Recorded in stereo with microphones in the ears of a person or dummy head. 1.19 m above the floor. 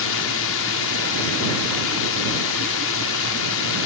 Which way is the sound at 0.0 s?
70° left (ahead or behind).